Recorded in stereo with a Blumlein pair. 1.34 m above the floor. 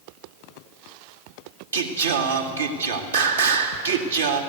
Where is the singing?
70° right, 2 m.